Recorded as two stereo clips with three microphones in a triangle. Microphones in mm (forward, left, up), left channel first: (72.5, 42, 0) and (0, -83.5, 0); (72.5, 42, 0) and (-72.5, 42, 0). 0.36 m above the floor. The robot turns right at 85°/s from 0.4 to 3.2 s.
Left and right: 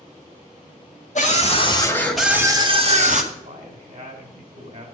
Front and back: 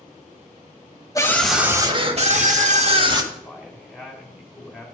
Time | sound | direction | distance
1.1 | a scream | 60° left | 2 m
3.3 | a man speaking | 95° right | 2.5 m